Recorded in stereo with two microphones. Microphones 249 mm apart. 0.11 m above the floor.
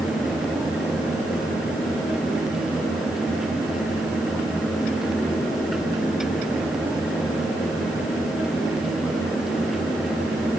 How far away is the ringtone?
No ringtone in this recording.